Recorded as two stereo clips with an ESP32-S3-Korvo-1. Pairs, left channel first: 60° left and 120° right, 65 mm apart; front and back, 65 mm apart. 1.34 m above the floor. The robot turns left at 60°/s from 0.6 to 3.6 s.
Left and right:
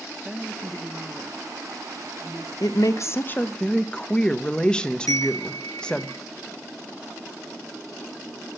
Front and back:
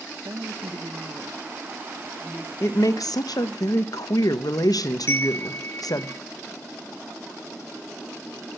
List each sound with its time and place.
0.2 s a woman speaking: 170° left, 1.7 m; by 2.5 s 55° left, 1.7 m
2.6 s a woman speaking: 45° left, 1.1 m; by 6.1 s 15° right, 1.1 m
5.1 s a chime: 45° left, 3 m